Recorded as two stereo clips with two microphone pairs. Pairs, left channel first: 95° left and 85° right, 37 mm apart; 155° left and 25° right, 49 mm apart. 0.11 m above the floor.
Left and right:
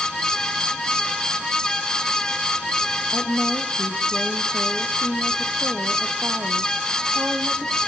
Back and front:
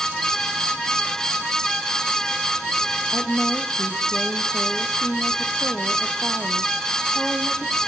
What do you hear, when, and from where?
3.1 s a woman speaking: 105° right, 3.5 m